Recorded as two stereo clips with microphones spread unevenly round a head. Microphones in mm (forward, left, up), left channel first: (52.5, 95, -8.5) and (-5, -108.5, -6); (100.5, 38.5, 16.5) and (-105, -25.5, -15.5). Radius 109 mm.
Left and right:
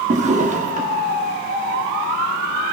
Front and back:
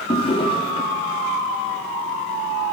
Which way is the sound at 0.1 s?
50° right.